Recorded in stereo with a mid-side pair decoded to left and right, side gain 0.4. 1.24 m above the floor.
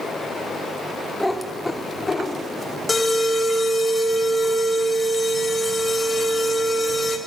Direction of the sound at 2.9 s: 30° left.